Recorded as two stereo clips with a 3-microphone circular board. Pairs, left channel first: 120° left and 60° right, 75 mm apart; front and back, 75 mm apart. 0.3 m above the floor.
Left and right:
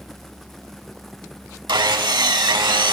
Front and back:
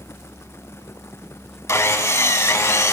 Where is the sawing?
50° right, 0.5 m.